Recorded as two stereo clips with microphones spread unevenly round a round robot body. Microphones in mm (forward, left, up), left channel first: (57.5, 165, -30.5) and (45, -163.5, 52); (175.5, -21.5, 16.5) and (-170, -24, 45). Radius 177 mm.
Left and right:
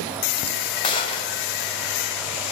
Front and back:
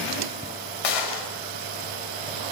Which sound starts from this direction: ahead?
A gunshot, at 0.8 s.